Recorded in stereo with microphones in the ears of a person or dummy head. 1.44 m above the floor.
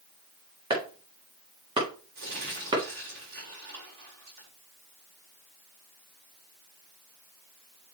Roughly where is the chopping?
Right.